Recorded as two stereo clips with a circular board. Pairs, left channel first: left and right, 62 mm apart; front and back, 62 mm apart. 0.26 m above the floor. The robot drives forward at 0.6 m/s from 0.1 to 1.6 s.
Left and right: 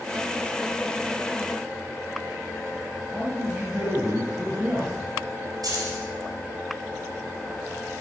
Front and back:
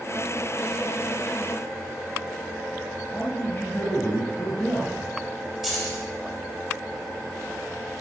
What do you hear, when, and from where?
3.1 s a man speaking: 40° right, 1.3 m
5.6 s keys jangling: 95° right, 3.5 m